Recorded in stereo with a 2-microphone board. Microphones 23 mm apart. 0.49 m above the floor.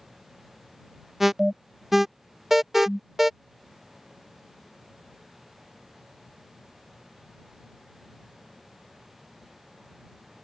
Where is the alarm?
15° right (ahead or behind).